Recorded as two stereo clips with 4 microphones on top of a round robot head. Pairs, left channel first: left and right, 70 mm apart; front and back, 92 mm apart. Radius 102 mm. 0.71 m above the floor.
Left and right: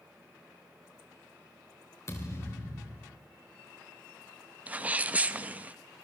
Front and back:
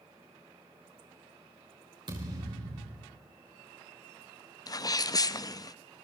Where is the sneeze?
30° right, 0.8 m.